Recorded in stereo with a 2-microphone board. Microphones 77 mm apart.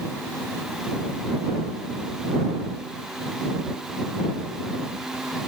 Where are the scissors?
No scissors in this recording.